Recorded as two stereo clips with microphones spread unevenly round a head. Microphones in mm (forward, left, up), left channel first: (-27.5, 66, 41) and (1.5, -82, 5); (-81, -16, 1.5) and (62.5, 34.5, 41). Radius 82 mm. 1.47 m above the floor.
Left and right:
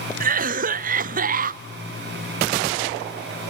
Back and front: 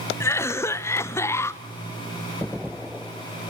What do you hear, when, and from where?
0.2 s a cough: 95° right, 0.5 m